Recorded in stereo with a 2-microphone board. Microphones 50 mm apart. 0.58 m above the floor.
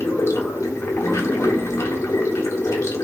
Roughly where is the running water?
Left.